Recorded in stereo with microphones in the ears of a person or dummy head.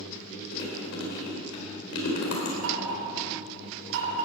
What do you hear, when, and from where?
0.5 s chewing: 75° left (ahead or behind), 4 m
2.6 s knocking: 75° right (ahead or behind), 5.5 m